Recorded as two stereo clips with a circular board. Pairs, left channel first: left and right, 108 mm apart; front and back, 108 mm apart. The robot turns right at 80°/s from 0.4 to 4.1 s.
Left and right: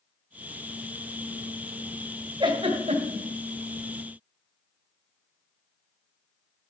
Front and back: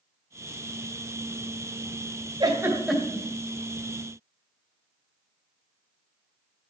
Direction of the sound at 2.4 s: 135° right.